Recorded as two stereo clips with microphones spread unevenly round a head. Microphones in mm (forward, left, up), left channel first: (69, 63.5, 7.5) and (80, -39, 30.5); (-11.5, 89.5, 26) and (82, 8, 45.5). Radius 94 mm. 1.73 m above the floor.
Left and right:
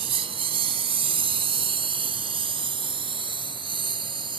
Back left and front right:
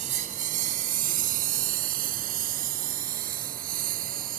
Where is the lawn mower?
80° right; by 4.4 s 50° right.